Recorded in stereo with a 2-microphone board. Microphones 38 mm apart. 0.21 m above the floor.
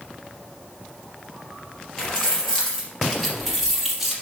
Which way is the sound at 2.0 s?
20° left (ahead or behind).